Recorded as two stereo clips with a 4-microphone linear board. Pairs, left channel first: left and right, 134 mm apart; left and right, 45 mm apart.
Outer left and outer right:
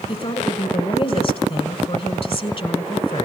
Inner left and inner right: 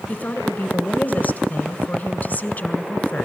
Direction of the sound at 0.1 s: 45° left (ahead or behind).